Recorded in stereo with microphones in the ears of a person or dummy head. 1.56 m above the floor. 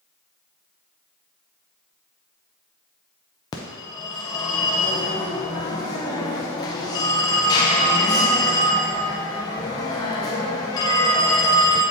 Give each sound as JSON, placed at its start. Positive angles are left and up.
{"t": 3.5, "sound": "a phone ringing", "side_deg": 15, "distance_m": 0.5}